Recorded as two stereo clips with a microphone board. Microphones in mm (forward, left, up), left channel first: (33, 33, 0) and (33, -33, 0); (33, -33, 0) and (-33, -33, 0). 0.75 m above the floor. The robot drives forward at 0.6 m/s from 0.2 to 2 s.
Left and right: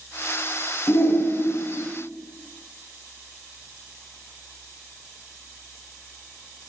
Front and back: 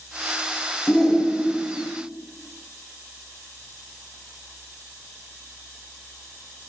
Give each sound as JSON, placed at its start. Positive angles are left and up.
{"t": 0.9, "sound": "a shout", "azimuth_deg": 65, "distance_m": 0.7}